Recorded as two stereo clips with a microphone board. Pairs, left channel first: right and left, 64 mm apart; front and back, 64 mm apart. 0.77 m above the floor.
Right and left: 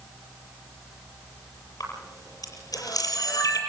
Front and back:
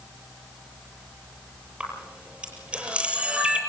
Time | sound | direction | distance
1.8 | a camera shutter | 105° right | 7.5 m